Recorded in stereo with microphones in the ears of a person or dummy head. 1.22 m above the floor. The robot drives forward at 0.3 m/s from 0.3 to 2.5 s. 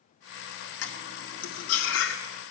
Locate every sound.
0.8 s cutlery clinking: 75° left (ahead or behind), 1.7 m